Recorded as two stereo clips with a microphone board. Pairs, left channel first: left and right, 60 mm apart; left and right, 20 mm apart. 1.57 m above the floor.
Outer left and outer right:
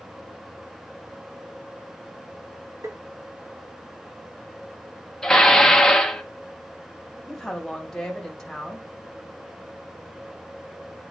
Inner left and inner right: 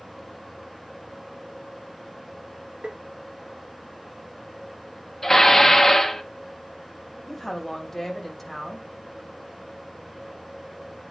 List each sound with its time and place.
2.8 s tapping: 65° right (ahead or behind), 0.9 m
5.2 s dishes clattering: 10° left (ahead or behind), 0.9 m
7.3 s a woman speaking: 5° left (ahead or behind), 3 m